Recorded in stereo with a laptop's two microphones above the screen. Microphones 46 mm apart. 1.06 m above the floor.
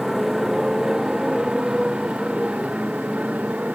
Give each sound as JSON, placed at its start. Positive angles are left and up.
{"t": 0.0, "sound": "a motorcycle", "side_deg": -5}